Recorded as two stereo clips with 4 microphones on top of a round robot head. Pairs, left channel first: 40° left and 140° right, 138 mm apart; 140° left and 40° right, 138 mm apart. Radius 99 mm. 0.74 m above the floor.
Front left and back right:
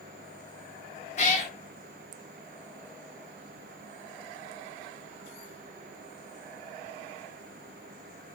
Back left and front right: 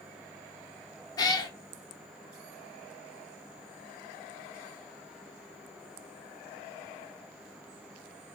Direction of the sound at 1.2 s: 80° left.